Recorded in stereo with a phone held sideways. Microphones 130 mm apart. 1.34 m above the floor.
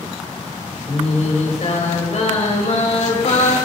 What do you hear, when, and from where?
0.9 s singing: 55° left (ahead or behind), 6 m